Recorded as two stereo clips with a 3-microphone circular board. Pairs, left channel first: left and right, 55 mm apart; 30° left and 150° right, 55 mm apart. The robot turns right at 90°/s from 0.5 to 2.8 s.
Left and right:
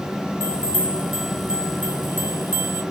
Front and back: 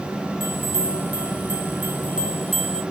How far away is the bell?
About 1.6 m.